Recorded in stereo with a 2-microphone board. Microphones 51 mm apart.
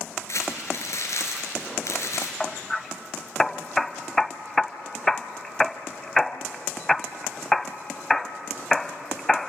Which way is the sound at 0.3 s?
65° left (ahead or behind).